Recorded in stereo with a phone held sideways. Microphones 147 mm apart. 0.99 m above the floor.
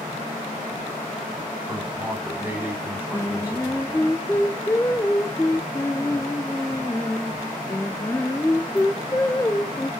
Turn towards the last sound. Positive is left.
turn(degrees=15)  # may be behind; listen again after turning